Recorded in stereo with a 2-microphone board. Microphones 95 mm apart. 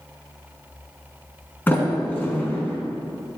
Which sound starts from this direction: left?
A sliding door, at 1.7 s.